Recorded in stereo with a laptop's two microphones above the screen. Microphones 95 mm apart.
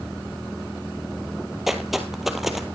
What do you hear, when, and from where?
1.7 s footsteps: 5° right (ahead or behind), 1.5 m